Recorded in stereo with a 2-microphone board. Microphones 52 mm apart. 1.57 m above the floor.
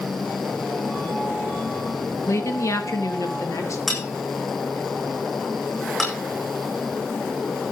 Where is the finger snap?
No finger snap in this recording.